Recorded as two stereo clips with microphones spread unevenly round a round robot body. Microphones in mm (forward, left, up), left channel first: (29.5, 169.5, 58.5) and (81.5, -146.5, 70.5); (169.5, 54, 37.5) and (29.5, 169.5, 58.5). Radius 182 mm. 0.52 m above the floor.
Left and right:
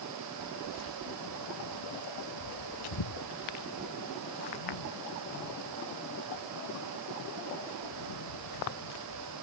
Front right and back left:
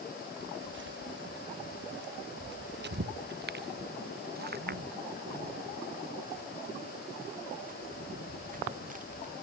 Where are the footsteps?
135° left; by 9.3 s 95° left.